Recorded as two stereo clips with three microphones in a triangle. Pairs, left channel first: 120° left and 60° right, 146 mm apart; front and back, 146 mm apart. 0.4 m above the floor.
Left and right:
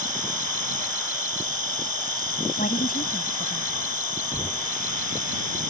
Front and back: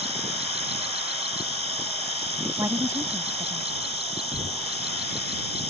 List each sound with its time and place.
0.0 s an insect: 135° left
2.6 s a woman speaking: 110° left
4.3 s knocking: 165° right